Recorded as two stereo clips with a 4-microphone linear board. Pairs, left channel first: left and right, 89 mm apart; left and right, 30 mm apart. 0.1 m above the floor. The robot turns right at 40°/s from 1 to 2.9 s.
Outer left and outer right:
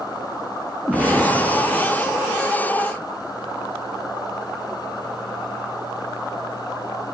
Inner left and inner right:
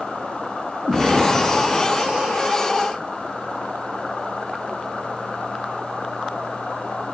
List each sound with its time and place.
0.9 s an explosion: 165° right, 1.3 m; by 2.4 s 110° right, 1.3 m